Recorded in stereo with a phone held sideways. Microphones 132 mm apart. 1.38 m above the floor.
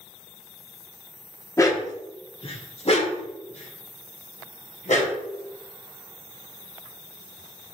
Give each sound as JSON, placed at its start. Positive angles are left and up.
{"t": 1.6, "sound": "a dog barking", "side_deg": 25, "distance_m": 1.0}